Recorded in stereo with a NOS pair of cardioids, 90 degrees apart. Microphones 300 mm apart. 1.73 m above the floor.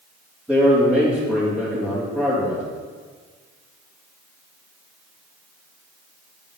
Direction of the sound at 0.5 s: 5° right.